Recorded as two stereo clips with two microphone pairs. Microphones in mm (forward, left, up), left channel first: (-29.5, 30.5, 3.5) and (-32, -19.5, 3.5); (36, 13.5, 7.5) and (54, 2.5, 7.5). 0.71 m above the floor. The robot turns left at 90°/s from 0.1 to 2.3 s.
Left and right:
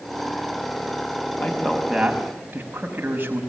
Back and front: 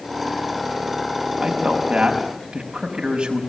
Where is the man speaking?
40° left, 5.5 m; by 3.4 s 45° right, 5.5 m.